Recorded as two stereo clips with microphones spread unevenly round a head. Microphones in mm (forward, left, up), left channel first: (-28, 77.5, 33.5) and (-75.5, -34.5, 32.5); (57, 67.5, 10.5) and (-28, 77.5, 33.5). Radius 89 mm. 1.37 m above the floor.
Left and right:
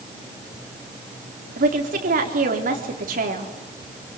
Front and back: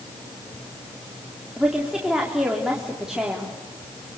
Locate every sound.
1.6 s a woman speaking: 100° right, 3.5 m